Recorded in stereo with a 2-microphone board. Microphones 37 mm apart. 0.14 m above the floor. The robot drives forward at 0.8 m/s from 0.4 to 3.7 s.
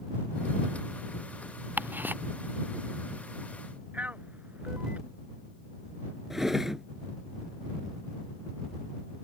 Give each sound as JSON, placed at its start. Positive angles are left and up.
{"t": 1.8, "sound": "ticking", "side_deg": -60}
{"t": 3.9, "sound": "a man speaking", "side_deg": -45}
{"t": 6.3, "sound": "a drawer", "side_deg": -10}